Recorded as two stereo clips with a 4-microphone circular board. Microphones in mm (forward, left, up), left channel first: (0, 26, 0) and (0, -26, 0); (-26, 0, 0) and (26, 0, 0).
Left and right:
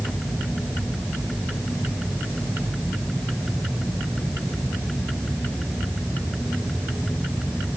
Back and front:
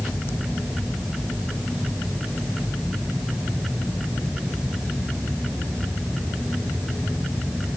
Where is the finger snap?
I don't hear a finger snap.